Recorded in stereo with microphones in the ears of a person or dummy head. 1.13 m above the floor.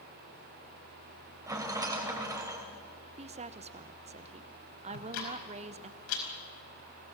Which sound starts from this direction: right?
A woman speaking, at 3.2 s.